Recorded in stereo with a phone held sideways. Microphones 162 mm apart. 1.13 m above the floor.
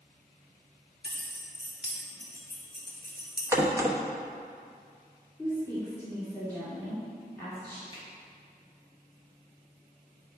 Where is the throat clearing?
No throat clearing in this recording.